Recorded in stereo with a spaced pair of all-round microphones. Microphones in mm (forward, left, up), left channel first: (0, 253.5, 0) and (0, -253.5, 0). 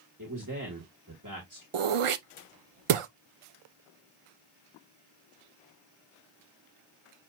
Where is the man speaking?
35° right (ahead or behind), 1.7 m.